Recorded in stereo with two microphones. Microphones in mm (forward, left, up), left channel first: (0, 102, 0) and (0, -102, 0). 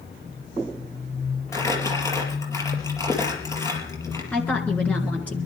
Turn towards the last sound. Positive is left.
turn(degrees=5)  # may be behind; listen again after turning